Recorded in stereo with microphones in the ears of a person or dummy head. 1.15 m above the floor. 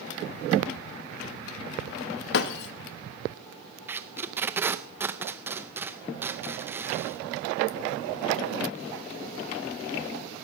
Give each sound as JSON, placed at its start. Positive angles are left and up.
{"t": 2.3, "sound": "breaking glass", "side_deg": 65, "distance_m": 0.7}
{"t": 3.9, "sound": "tape being pulled", "side_deg": -10, "distance_m": 0.6}